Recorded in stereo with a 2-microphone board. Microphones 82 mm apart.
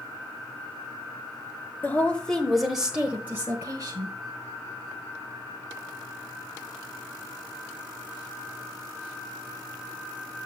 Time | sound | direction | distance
1.8 | a woman speaking | 25° left (ahead or behind) | 1.1 m